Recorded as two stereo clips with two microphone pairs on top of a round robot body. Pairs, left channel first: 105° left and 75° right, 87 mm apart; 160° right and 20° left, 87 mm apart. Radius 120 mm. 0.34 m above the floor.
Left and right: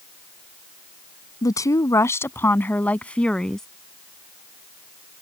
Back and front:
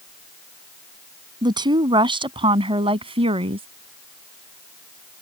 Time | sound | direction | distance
1.4 | a woman speaking | 55° left | ?